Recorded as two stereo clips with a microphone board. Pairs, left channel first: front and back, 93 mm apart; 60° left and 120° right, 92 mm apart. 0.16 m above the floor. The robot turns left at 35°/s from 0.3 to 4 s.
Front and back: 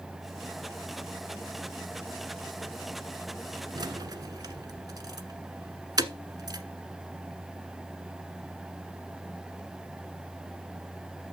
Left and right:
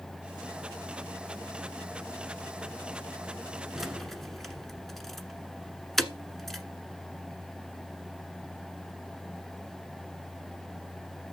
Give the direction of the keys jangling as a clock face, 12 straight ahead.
7 o'clock.